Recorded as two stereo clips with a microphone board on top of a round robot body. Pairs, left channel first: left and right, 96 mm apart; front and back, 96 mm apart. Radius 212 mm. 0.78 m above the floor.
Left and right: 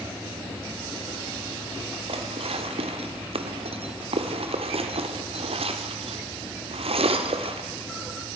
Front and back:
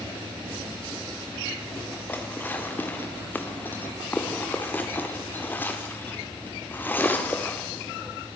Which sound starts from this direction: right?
Dishes clattering, at 2.1 s.